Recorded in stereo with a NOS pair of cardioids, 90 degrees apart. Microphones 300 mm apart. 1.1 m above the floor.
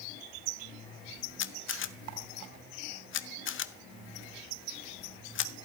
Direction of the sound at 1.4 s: 40° left.